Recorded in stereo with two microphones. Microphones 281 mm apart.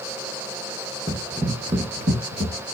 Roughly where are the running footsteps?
Centre.